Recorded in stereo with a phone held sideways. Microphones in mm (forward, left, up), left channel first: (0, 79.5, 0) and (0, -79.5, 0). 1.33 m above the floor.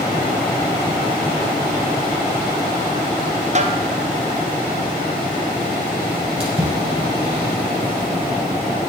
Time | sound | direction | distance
3.5 | a snare drum | 45° right (ahead or behind) | 0.5 m
6.4 | a splash | 35° right (ahead or behind) | 3 m